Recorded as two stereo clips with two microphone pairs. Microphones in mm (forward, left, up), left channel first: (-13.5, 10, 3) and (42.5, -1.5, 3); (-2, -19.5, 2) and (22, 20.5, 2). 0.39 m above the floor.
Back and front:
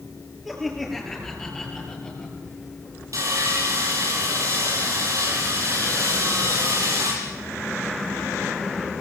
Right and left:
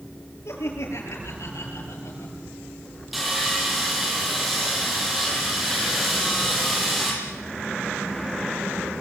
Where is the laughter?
100° right, 8 m; by 2.4 s 120° right, 8.5 m.